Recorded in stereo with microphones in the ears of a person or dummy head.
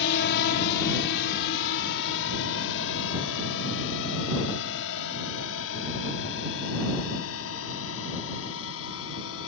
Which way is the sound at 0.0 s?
65° left (ahead or behind).